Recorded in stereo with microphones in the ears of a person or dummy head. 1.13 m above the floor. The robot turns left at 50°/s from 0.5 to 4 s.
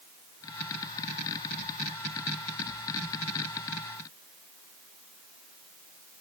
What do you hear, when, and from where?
Only background noise.